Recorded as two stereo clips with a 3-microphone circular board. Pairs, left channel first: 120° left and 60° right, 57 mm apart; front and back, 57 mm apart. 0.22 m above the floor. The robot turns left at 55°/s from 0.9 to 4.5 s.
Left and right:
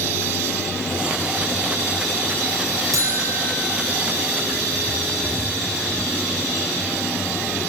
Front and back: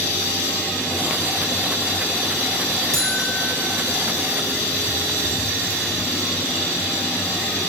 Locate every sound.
2.9 s a buzzer: 80° right, 6 m; by 3.5 s 110° right, 6 m